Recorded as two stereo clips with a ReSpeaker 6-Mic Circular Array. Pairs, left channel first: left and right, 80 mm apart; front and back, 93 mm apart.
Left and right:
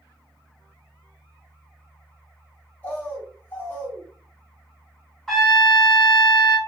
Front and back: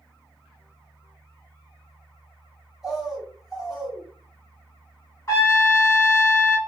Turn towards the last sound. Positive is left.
turn(degrees=10)